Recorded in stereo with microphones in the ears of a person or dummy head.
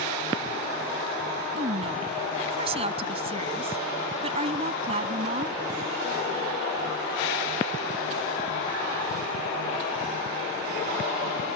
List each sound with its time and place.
1.6 s a woman speaking: 25° right (ahead or behind)